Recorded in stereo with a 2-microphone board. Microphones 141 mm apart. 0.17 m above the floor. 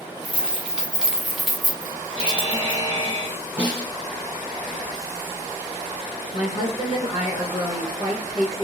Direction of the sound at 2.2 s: 55° left (ahead or behind).